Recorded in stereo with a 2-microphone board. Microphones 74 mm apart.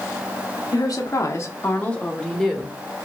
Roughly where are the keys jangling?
No keys jangling in this recording.